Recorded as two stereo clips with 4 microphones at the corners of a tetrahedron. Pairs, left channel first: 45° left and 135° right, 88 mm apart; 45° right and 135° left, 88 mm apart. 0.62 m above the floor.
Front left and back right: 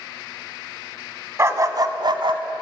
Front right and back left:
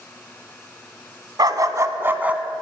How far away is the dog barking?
About 1.0 m.